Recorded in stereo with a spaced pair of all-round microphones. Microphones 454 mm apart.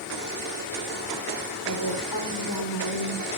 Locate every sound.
1.6 s a woman speaking: 45° left (ahead or behind), 3.5 m; by 3.3 s 55° left (ahead or behind), 4 m